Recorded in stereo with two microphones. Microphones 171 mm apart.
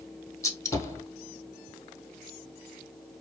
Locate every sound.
0.4 s a gunshot: 15° left (ahead or behind), 0.5 m